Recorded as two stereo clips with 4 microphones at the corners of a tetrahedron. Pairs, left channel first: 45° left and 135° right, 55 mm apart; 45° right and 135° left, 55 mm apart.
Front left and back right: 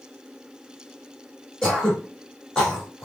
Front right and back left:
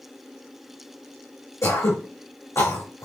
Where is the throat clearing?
30° right, 2.5 m.